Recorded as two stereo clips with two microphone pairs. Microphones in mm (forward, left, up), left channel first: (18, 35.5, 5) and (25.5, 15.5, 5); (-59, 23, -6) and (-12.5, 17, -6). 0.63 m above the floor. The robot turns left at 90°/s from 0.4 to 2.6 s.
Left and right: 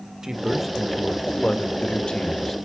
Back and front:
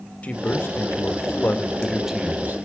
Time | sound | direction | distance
0.2 | a man speaking | 130° right | 1.6 m